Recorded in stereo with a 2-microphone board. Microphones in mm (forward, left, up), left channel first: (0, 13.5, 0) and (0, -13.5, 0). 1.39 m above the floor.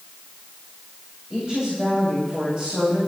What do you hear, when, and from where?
1.3 s a woman speaking: 35° right (ahead or behind), 8.5 m